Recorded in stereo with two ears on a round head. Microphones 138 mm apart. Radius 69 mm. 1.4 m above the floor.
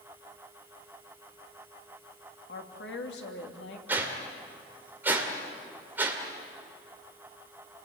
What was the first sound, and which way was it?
A woman speaking, 80° left.